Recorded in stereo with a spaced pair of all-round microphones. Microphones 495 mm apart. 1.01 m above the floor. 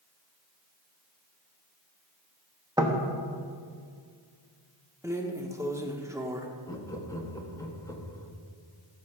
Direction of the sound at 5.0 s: 5° right (ahead or behind).